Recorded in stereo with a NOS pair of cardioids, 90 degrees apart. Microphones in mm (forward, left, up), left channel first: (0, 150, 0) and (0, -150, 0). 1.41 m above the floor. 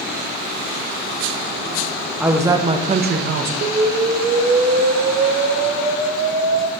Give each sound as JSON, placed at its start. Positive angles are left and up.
{"t": 2.2, "sound": "a woman speaking", "azimuth_deg": -5, "distance_m": 1.2}
{"t": 3.6, "sound": "an explosion", "azimuth_deg": -35, "distance_m": 0.9}